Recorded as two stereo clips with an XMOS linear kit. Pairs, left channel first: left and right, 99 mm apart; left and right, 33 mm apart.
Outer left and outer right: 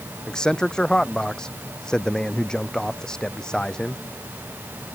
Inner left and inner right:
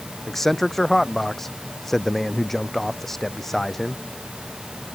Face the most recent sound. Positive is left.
turn(degrees=10)  # may be behind; listen again after turning